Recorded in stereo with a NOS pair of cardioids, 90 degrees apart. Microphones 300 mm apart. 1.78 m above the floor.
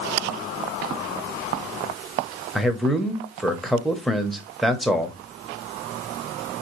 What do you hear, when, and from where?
2.5 s a man speaking: straight ahead, 0.8 m